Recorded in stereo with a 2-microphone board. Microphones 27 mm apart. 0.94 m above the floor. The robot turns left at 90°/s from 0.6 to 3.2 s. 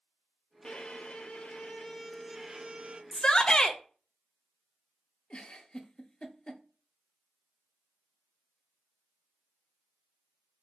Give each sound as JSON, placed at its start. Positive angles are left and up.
{"t": 0.6, "sound": "a violin", "azimuth_deg": 145, "distance_m": 0.5}
{"t": 3.1, "sound": "a shout", "side_deg": 25, "distance_m": 0.7}
{"t": 5.3, "sound": "a giggle", "side_deg": 35, "distance_m": 0.5}